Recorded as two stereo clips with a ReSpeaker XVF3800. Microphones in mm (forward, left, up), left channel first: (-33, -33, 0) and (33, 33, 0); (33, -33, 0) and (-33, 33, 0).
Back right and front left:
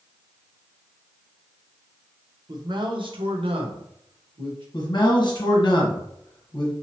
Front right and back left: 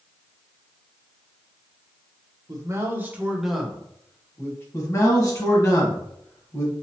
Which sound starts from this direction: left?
A man speaking, at 2.5 s.